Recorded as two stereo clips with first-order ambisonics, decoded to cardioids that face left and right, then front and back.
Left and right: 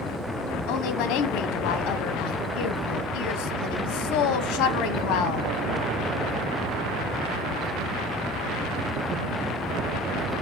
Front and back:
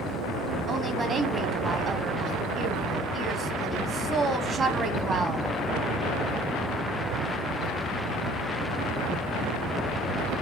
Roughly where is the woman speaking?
Behind left.